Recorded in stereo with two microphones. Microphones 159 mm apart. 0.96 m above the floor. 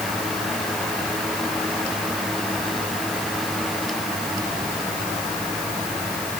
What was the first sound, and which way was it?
Only background noise.